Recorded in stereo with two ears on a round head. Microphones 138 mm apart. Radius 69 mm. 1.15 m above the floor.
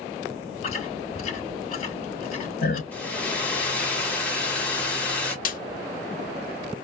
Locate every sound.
0.6 s chewing: 45° left (ahead or behind), 3.5 m
2.9 s a hair dryer: 10° left (ahead or behind), 1.3 m
5.5 s a snare drum: 60° left (ahead or behind), 1.1 m